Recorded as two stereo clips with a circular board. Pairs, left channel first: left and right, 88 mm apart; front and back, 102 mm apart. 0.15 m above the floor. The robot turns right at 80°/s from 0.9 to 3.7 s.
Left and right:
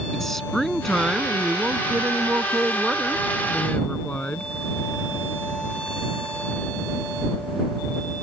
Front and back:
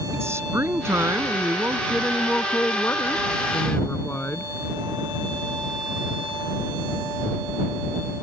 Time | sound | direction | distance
0.1 | a woman speaking | 175° left | ?